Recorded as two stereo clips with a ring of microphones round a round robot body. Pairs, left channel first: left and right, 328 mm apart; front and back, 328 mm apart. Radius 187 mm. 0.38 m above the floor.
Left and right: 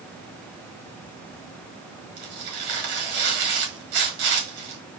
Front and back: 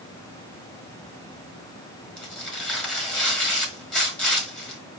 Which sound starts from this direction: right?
Tearing paper, at 2.2 s.